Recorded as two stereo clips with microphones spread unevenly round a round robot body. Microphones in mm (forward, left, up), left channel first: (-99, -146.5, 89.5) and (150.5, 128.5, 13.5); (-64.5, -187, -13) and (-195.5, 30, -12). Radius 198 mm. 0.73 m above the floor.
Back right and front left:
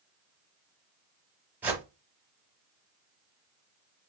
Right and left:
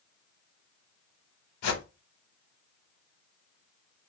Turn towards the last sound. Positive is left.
turn(degrees=-45)